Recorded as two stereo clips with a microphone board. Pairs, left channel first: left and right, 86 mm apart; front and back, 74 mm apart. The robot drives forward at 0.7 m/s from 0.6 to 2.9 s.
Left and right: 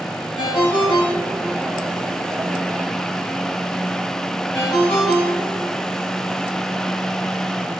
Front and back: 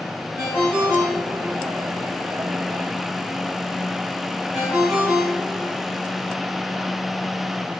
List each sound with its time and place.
0.4 s a ringtone: 105° left, 4 m; by 5.8 s 125° left, 4.5 m